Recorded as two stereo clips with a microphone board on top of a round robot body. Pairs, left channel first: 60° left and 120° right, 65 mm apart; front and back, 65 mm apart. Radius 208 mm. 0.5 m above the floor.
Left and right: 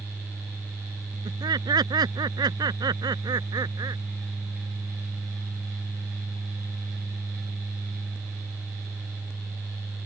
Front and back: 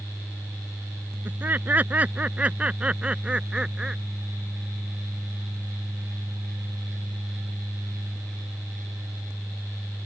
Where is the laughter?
120° right; by 4.0 s 100° right.